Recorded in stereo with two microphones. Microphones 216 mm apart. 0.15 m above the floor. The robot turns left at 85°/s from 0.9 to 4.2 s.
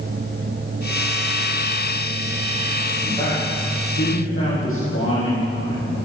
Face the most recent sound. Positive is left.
turn(degrees=80)